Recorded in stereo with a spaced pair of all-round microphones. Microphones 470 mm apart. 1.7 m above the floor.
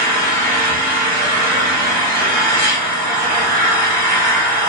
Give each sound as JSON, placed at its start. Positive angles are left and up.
{"t": 0.0, "sound": "an engine running", "side_deg": -20, "distance_m": 2.5}